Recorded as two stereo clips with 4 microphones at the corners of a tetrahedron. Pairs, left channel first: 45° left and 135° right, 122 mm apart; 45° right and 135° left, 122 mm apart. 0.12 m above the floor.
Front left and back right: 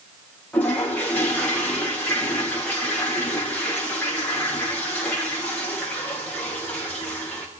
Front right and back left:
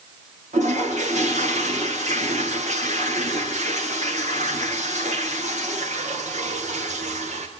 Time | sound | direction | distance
0.5 | a toilet flushing | 125° left | 6 m